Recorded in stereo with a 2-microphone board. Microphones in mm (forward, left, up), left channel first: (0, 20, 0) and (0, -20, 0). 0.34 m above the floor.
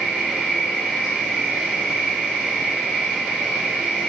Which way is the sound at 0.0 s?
20° right (ahead or behind).